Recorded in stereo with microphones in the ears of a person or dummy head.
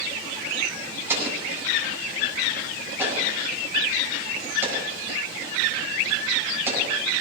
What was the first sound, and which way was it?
An explosion, 15° right (ahead or behind).